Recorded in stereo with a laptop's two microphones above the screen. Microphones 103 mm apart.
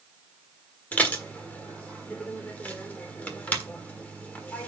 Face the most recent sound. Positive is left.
turn(degrees=15)  # may be behind; listen again after turning